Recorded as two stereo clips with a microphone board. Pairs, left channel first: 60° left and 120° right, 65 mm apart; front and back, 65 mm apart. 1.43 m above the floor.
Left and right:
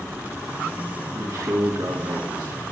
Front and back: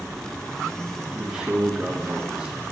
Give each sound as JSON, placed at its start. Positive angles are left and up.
{"t": 1.1, "sound": "a man speaking", "azimuth_deg": -105, "distance_m": 1.8}